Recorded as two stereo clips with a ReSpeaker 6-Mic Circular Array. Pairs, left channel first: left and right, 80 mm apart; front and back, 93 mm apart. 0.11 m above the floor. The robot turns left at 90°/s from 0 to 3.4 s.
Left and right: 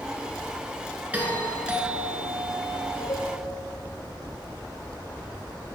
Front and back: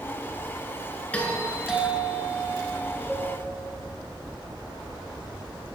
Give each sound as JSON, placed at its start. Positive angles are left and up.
{"t": 1.1, "sound": "a doorbell", "azimuth_deg": -50, "distance_m": 1.6}
{"t": 3.1, "sound": "a cowbell", "azimuth_deg": 90, "distance_m": 1.7}